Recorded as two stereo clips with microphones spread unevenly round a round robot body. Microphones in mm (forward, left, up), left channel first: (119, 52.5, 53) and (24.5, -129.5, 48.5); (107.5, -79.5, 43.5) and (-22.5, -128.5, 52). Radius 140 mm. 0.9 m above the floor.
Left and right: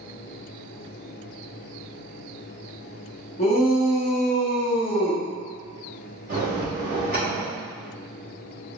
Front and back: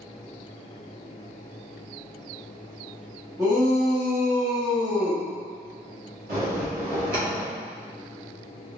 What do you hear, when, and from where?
3.4 s a shout: 125° left, 0.9 m
6.3 s a bell: straight behind, 1.4 m